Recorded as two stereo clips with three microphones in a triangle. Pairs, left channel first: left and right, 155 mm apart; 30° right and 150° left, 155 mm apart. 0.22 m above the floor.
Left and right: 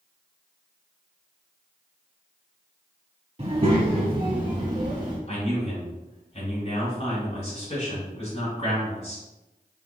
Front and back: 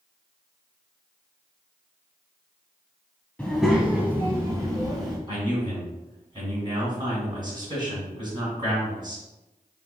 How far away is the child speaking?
About 0.7 m.